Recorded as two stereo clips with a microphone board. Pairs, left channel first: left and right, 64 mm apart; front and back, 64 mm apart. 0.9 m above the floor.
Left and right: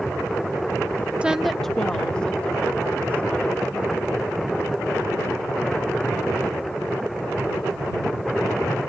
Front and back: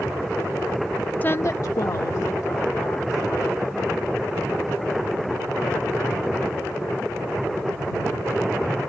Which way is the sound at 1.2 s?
35° right.